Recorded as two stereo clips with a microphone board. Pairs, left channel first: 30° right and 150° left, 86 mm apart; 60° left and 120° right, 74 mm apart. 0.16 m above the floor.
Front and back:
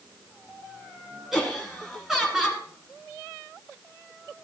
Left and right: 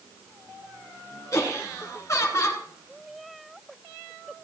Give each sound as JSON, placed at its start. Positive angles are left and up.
{"t": 1.3, "sound": "laughter", "azimuth_deg": 70, "distance_m": 2.0}